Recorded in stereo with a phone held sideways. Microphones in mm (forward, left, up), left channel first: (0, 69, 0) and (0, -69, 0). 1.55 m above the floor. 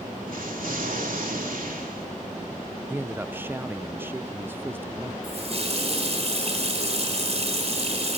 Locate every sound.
0.3 s an explosion: 80° right, 3 m
2.9 s a man speaking: 15° right (ahead or behind), 0.6 m
5.2 s a running tap: 50° right (ahead or behind), 4.5 m